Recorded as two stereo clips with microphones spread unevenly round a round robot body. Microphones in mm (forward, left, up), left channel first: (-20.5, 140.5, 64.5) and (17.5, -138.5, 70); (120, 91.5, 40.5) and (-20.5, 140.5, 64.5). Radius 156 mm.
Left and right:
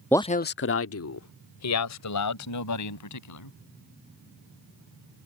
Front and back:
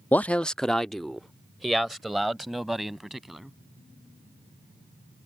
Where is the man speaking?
20° left; by 3.5 s 75° left.